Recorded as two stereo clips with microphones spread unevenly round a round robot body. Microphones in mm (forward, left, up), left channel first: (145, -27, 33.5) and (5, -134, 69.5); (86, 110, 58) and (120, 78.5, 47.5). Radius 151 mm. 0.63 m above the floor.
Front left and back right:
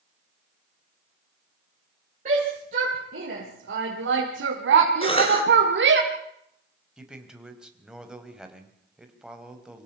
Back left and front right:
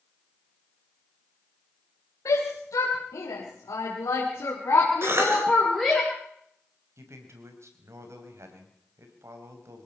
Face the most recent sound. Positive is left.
turn(degrees=-55)